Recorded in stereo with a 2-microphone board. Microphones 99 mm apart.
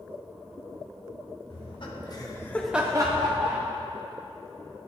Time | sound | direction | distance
1.5 | laughter | 60° left (ahead or behind) | 1.4 m